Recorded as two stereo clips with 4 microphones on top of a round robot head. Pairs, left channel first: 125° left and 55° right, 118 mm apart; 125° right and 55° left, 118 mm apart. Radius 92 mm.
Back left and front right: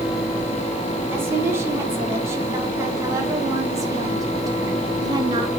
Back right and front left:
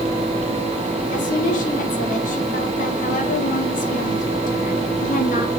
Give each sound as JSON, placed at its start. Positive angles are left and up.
{"t": 1.1, "sound": "a woman speaking", "azimuth_deg": -125, "distance_m": 6.5}